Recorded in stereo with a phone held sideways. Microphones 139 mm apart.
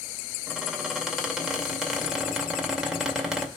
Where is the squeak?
5° right (ahead or behind), 2.5 m.